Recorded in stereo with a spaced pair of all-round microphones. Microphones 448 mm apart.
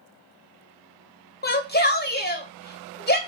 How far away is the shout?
About 0.6 m.